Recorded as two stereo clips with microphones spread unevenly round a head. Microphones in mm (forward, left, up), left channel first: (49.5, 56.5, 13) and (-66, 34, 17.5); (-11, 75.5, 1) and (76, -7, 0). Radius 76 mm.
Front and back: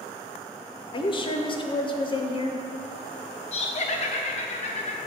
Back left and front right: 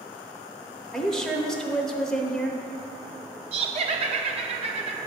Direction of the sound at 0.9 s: 50° left.